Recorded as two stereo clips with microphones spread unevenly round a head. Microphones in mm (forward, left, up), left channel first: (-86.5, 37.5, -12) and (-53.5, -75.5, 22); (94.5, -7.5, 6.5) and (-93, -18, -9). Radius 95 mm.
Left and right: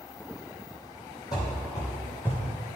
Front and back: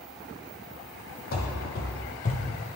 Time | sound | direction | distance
1.3 | running footsteps | 30° left | 1.7 m